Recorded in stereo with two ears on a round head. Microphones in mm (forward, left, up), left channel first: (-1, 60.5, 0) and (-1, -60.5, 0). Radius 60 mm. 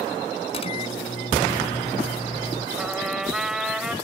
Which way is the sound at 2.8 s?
5° right (ahead or behind).